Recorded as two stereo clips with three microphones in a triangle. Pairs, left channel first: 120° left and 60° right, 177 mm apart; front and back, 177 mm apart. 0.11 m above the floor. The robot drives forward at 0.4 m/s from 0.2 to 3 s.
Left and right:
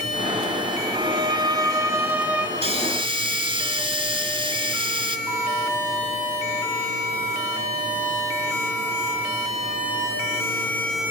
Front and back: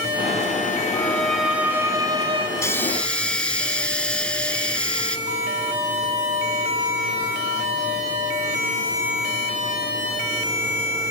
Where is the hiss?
60° right, 0.8 m; by 5.2 s 80° right, 0.8 m.